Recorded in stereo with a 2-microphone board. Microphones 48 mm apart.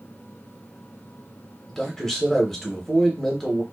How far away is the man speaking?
About 0.8 m.